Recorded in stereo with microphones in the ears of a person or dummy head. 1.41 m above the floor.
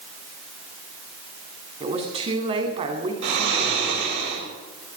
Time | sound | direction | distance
1.8 | a woman speaking | 35° right (ahead or behind) | 3 m
3.2 | snoring | 70° right (ahead or behind) | 6 m